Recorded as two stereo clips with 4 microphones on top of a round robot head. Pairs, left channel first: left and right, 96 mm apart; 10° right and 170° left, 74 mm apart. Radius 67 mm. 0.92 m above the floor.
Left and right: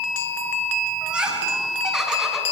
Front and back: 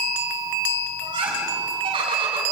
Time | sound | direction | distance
1.0 | laughter | 170° right | 8.5 m